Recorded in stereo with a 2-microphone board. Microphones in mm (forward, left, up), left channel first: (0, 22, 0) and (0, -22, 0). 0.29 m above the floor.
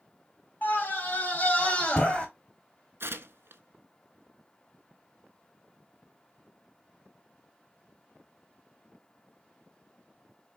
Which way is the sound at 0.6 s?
45° left (ahead or behind).